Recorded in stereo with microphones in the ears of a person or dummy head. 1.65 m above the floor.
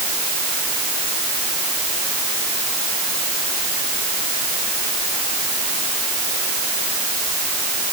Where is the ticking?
I don't hear ticking.